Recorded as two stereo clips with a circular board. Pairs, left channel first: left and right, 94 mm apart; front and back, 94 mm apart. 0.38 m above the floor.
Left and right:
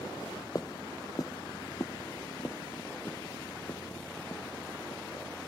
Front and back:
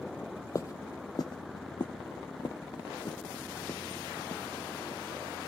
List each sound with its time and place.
0.6 s footsteps: 50° left, 0.6 m; by 5.5 s 35° left, 3.5 m